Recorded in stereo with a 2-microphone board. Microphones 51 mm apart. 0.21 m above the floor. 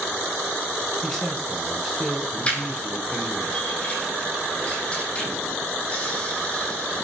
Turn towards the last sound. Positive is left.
turn(degrees=25)  # may be behind; listen again after turning